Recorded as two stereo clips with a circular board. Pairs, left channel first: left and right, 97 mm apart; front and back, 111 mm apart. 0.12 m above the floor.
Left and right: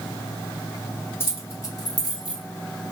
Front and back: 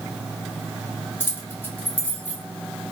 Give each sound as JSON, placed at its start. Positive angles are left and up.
{"t": 1.2, "sound": "keys jangling", "azimuth_deg": 50, "distance_m": 1.2}